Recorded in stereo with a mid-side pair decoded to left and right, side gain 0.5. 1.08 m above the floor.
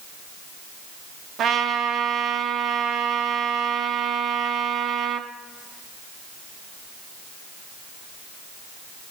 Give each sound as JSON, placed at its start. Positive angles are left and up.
{"t": 1.4, "sound": "a trumpet", "azimuth_deg": -65, "distance_m": 0.8}